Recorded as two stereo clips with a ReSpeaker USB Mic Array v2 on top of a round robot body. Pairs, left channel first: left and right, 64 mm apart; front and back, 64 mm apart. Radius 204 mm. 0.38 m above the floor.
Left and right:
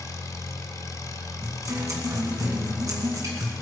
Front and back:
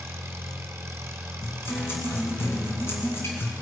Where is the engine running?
125° left, 1.4 m.